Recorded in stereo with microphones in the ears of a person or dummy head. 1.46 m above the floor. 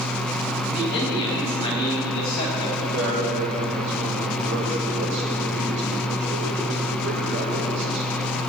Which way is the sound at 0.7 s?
40° left (ahead or behind).